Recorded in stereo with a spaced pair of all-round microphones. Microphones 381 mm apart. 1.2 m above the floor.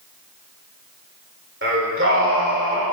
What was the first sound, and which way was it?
Singing, 30° right (ahead or behind).